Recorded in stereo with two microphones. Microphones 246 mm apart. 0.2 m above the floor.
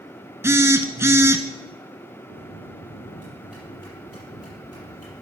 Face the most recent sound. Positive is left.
turn(degrees=75)  # may be behind; listen again after turning